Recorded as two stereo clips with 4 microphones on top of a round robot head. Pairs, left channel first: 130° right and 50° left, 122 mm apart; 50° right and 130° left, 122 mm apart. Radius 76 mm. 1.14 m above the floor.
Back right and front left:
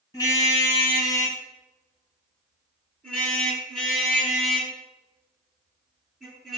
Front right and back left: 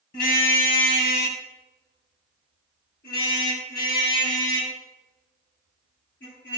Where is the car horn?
65° right, 4.5 m; by 6.6 s 40° right, 11 m.